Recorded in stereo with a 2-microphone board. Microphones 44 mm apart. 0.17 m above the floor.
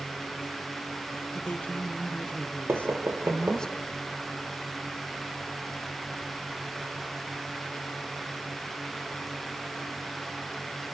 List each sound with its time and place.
1.3 s a woman speaking: 40° left (ahead or behind), 2.5 m; by 3.7 s 15° left (ahead or behind), 1.6 m
2.7 s knocking: 65° right (ahead or behind), 4.5 m